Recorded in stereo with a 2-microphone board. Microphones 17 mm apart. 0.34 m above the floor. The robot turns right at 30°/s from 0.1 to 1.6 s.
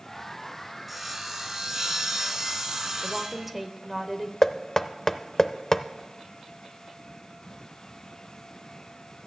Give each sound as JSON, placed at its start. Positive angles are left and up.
{"t": 0.9, "sound": "sawing", "side_deg": -5, "distance_m": 1.3}
{"t": 3.0, "sound": "a woman speaking", "side_deg": -10, "distance_m": 0.9}
{"t": 4.4, "sound": "knocking", "side_deg": 25, "distance_m": 0.5}